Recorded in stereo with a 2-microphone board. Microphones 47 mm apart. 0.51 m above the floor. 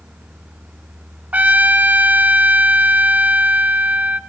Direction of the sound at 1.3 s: 35° right (ahead or behind).